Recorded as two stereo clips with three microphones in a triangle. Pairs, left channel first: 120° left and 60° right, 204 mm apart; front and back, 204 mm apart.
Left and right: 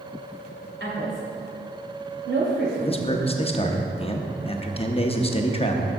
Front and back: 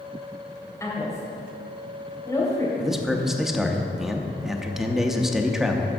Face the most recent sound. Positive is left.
turn(degrees=95)